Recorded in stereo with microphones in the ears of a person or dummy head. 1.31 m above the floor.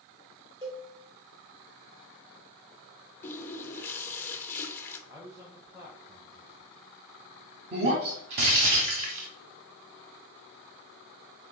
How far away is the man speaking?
About 1.3 m.